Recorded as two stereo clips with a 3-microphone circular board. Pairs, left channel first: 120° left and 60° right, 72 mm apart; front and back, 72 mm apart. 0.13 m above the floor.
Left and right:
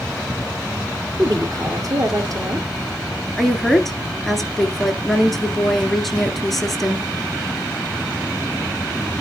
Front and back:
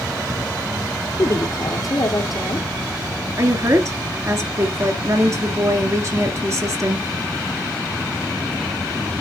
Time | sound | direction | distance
1.2 | a woman speaking | 30° right | 2.5 m
3.4 | a woman speaking | 150° right | 1.7 m